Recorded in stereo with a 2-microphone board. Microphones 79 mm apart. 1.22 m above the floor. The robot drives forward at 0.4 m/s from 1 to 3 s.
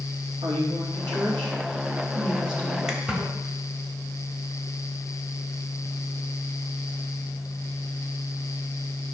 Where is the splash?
5° right (ahead or behind), 1.4 m.